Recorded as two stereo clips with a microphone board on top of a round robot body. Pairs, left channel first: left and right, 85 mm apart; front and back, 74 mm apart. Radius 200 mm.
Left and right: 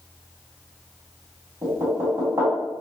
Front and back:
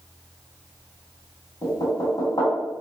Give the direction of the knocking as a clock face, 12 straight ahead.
1 o'clock.